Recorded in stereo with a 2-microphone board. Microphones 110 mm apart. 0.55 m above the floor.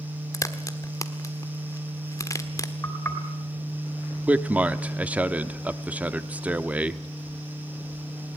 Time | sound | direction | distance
0.3 | a crack | 30° left (ahead or behind) | 1.3 m
2.8 | knocking | 25° left (ahead or behind) | 3 m
4.3 | a man speaking | 10° right (ahead or behind) | 0.8 m